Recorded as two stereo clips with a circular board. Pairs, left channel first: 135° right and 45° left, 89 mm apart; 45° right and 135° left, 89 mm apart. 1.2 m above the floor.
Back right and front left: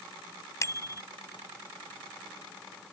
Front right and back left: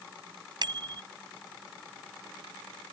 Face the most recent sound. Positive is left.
turn(degrees=170)